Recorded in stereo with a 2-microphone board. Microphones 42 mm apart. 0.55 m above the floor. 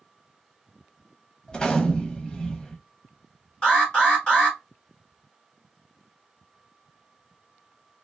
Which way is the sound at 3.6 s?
20° left (ahead or behind).